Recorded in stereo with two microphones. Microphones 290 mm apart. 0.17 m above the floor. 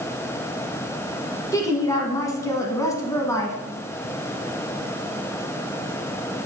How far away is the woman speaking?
About 1.2 m.